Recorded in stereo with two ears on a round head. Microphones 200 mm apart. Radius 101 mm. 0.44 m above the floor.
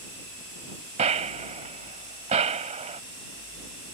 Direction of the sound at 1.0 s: 30° right (ahead or behind).